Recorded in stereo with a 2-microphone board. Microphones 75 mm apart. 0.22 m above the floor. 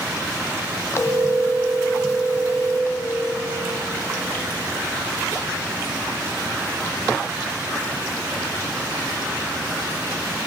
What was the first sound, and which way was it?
A phone ringing, 40° left (ahead or behind).